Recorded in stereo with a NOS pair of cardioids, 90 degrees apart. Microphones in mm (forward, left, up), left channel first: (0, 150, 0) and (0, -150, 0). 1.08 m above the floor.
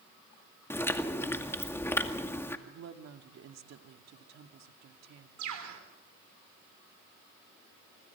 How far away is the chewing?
About 2 m.